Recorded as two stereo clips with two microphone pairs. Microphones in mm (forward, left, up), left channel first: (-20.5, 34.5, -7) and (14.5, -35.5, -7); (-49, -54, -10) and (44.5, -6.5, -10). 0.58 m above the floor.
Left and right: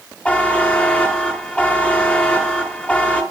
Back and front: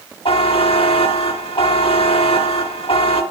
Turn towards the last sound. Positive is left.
turn(degrees=-170)